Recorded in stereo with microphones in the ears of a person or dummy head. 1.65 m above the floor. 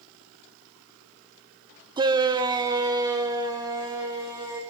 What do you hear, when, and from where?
2.0 s a shout: 25° right (ahead or behind), 0.9 m; by 4.6 s 20° right (ahead or behind), 3 m